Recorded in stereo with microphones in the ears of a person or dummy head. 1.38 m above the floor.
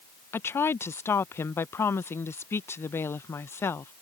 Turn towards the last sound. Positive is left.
turn(degrees=15)  # may be behind; listen again after turning